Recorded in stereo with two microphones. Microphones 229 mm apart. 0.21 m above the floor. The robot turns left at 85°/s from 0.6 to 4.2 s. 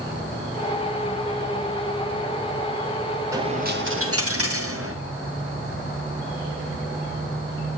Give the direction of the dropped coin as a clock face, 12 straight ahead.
12 o'clock.